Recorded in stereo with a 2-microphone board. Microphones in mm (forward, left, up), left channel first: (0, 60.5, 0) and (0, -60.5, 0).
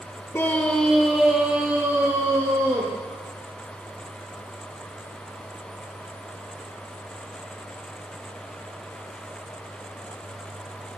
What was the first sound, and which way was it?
A scream, 20° left (ahead or behind).